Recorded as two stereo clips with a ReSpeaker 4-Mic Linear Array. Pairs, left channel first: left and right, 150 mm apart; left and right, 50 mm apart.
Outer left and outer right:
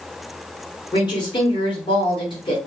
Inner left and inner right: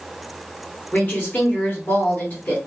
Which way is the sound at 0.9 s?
35° left (ahead or behind).